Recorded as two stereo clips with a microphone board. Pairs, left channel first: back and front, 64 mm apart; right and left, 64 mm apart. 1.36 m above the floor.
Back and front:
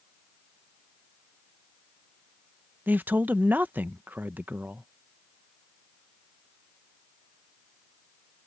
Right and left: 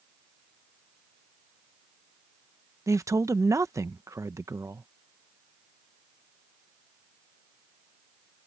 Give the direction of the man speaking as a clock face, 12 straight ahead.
10 o'clock.